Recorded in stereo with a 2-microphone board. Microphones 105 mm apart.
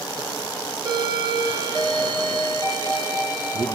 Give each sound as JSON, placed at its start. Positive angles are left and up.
{"t": 0.8, "sound": "a doorbell", "side_deg": -45, "distance_m": 2.5}